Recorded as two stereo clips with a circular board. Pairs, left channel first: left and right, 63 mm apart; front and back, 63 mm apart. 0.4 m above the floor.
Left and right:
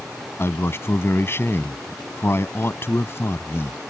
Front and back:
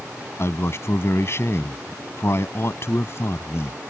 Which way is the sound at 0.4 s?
45° left.